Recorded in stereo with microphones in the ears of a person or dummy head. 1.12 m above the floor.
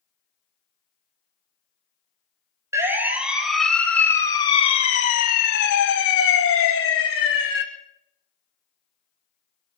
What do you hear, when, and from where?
2.7 s a siren: 15° right (ahead or behind), 2 m; by 7.6 s 70° left (ahead or behind), 2.5 m